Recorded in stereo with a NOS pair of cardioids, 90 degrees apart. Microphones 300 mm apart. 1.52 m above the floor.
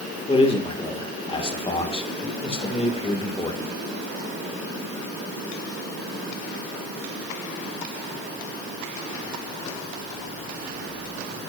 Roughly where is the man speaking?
Ahead.